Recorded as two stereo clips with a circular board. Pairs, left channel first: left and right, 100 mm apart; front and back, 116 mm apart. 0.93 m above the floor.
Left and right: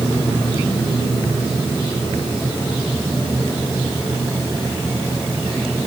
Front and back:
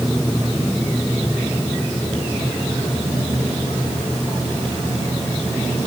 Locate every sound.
Only background noise.